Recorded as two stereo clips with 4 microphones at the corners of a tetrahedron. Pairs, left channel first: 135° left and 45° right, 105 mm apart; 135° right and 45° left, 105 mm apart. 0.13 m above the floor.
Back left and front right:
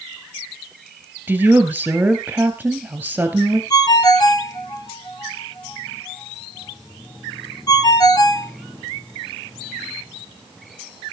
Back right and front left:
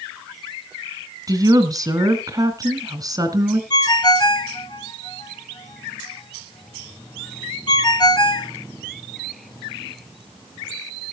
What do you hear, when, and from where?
1.3 s a woman speaking: 20° left, 2 m
3.7 s a ringtone: straight behind, 1.0 m